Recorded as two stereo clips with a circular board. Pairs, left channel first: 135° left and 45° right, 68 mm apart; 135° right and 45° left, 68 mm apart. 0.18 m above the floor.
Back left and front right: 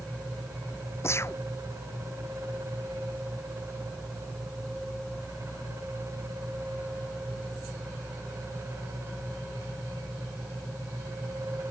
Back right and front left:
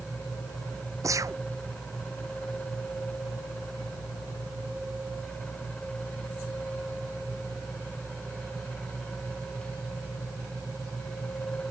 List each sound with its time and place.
1.0 s a gunshot: 85° left